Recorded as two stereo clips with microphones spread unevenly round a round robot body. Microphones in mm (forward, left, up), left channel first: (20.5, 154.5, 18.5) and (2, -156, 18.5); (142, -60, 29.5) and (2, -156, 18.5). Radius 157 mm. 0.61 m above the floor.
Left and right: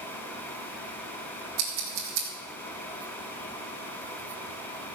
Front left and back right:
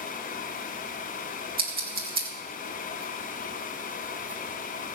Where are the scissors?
115° right, 4.5 m.